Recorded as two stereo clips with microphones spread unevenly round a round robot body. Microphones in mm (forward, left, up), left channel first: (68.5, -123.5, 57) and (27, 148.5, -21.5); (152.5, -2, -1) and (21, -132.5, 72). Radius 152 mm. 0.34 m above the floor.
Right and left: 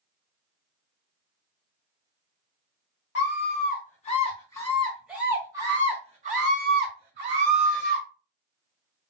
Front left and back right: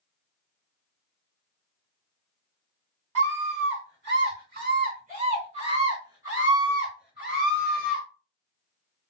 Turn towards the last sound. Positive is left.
turn(degrees=115)